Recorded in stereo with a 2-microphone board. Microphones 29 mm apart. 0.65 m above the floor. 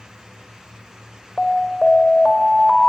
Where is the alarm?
10° left (ahead or behind), 3 m.